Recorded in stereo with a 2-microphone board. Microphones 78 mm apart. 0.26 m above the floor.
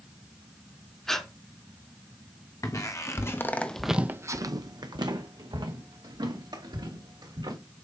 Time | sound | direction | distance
1.1 | breathing | 5° left (ahead or behind) | 0.9 m
2.6 | footsteps | 50° left (ahead or behind) | 1.3 m